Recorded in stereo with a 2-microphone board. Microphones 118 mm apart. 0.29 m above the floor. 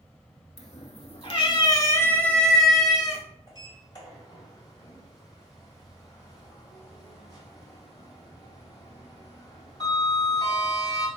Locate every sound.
0.6 s a cat meowing: 80° left, 1.0 m; by 3.2 s 10° right (ahead or behind), 1.3 m
3.5 s a sliding door: 35° left (ahead or behind), 1.9 m